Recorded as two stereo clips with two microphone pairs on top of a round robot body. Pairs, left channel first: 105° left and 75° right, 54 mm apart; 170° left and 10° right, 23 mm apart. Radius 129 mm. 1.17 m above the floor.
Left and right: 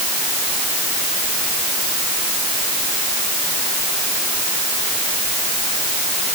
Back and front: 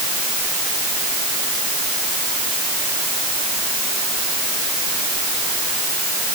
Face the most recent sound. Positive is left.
No sound to turn to.